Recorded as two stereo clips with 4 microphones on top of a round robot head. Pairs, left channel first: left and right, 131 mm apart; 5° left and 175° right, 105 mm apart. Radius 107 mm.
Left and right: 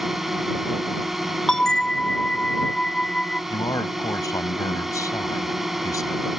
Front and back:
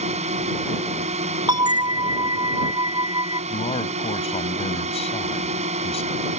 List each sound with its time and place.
0.0 s a drone: straight behind
1.5 s a bell: 175° left
3.5 s a man speaking: 25° left